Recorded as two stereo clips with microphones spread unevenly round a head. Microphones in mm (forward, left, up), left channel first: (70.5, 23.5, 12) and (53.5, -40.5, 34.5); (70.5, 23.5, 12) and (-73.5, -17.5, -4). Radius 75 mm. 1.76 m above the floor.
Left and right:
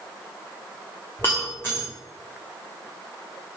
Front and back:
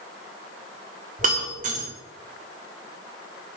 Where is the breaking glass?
165° left, 2 m.